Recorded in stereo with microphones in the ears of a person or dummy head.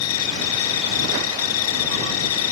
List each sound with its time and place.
0.0 s an insect: 75° left (ahead or behind)